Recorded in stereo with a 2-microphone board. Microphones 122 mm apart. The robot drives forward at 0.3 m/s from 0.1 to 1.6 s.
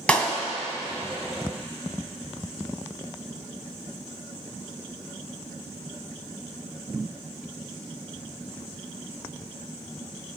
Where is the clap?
10° left (ahead or behind), 2 m.